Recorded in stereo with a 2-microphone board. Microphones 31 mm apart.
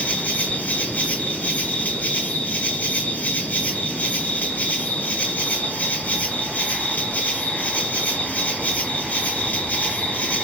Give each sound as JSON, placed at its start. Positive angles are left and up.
{"t": 0.0, "sound": "an insect", "side_deg": 55, "distance_m": 1.3}